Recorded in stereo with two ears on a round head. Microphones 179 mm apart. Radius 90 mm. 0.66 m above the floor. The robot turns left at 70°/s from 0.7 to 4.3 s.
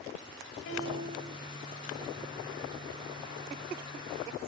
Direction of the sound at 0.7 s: 65° left.